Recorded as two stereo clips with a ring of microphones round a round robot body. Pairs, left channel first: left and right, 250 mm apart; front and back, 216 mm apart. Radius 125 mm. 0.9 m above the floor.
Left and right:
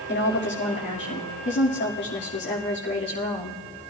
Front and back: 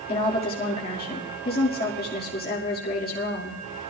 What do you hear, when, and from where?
0.1 s a woman speaking: 45° left, 2 m